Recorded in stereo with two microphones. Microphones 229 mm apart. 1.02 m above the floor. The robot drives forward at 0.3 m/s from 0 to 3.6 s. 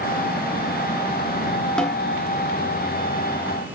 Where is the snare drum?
5° left (ahead or behind), 1.2 m.